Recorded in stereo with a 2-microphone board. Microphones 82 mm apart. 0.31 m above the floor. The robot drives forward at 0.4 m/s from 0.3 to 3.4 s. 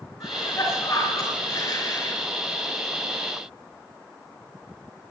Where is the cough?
35° left (ahead or behind), 4.5 m; by 2.2 s 30° left (ahead or behind), 5 m.